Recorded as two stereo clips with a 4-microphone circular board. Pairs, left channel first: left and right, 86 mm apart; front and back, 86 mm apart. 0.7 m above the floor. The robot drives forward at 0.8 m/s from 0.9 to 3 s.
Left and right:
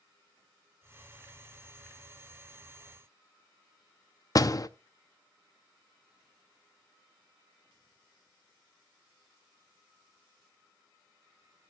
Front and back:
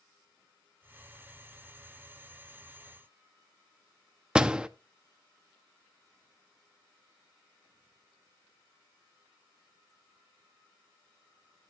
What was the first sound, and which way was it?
A door slam, 105° left.